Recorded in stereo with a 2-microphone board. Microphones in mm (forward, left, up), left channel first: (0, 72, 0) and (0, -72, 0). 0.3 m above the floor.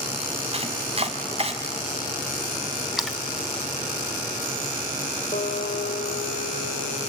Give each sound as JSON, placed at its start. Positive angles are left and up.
{"t": 0.5, "sound": "chopping", "side_deg": -40, "distance_m": 1.7}
{"t": 3.0, "sound": "a splash", "side_deg": 0, "distance_m": 1.1}
{"t": 5.3, "sound": "a guitar", "side_deg": 60, "distance_m": 4.5}